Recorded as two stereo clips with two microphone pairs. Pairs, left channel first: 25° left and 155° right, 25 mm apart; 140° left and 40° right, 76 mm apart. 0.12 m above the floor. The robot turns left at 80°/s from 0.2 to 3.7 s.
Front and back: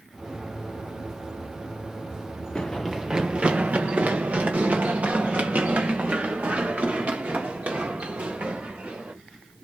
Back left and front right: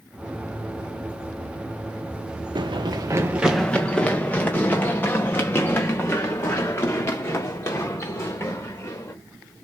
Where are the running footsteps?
30° right, 0.9 m; by 9.1 s 170° right, 4 m.